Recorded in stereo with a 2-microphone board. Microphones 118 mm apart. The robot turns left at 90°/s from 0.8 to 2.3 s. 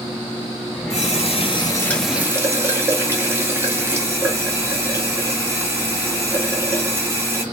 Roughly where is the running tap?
Left.